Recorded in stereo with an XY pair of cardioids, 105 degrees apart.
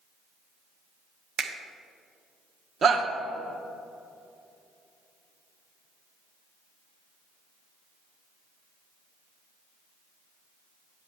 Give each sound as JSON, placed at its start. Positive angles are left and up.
{"t": 1.4, "sound": "a finger snap", "azimuth_deg": -60, "distance_m": 0.8}
{"t": 2.8, "sound": "a shout", "azimuth_deg": -50, "distance_m": 1.0}